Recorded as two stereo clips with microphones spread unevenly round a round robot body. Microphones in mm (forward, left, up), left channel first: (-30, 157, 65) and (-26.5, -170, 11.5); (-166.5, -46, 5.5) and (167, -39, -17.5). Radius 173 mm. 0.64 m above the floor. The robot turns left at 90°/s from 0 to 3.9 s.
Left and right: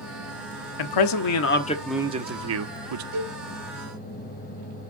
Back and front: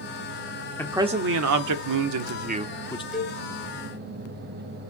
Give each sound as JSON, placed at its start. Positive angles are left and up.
{"t": 0.8, "sound": "a man speaking", "azimuth_deg": 95, "distance_m": 1.3}
{"t": 3.1, "sound": "a cowbell", "azimuth_deg": -85, "distance_m": 5.0}